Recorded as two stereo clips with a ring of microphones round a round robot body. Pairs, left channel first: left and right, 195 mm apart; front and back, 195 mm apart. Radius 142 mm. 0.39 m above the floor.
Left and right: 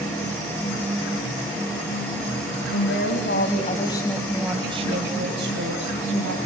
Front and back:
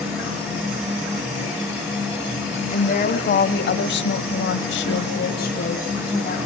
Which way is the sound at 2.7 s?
45° left.